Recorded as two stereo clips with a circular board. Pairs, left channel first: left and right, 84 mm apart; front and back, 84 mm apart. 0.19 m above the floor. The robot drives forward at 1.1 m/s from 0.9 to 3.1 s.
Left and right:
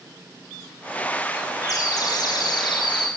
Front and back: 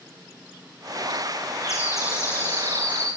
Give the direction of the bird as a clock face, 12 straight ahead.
10 o'clock.